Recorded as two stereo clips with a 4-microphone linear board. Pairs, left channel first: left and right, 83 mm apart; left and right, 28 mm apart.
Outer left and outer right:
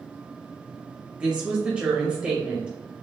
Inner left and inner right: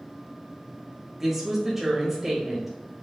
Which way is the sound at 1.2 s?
10° right (ahead or behind).